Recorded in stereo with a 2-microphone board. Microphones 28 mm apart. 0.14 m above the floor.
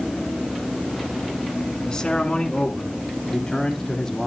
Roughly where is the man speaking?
Left.